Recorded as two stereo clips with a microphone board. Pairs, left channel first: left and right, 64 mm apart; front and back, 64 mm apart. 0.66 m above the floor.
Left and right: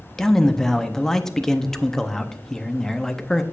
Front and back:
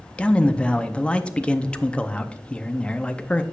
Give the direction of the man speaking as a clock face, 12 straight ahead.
11 o'clock.